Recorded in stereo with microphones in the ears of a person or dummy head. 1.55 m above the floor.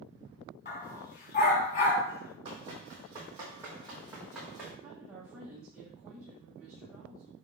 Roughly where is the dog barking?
Left.